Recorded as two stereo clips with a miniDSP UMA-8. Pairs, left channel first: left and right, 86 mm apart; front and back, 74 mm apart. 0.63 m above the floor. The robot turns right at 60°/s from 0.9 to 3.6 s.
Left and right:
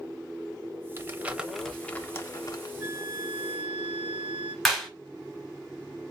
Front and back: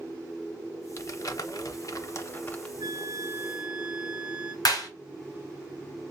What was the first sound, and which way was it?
Crumpling, 35° right.